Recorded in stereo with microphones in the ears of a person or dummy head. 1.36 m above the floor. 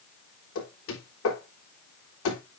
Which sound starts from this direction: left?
Knocking, at 0.6 s.